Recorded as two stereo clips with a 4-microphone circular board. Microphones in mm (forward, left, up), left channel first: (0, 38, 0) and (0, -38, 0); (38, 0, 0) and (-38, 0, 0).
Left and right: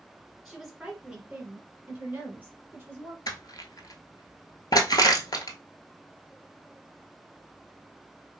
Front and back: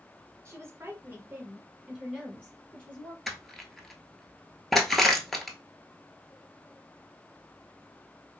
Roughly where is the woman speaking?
Behind.